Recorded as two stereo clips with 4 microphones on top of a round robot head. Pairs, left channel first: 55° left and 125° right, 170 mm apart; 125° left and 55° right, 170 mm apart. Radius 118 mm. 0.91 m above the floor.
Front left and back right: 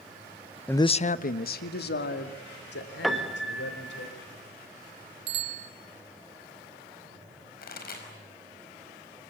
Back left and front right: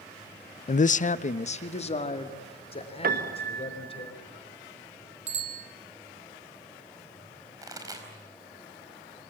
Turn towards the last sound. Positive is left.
turn(degrees=20)